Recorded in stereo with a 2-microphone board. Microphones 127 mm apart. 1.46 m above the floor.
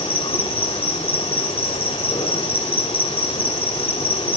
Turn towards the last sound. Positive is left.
turn(degrees=50)  # may be behind; listen again after turning